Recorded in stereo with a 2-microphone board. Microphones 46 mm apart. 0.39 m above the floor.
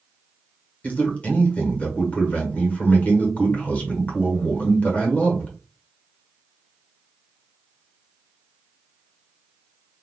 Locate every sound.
0.8 s a man speaking: 30° left (ahead or behind), 1.1 m